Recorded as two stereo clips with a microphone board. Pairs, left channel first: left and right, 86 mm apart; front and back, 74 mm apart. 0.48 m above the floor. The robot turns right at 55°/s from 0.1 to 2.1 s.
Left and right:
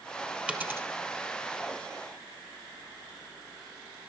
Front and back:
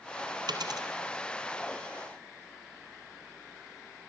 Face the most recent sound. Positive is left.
turn(degrees=-75)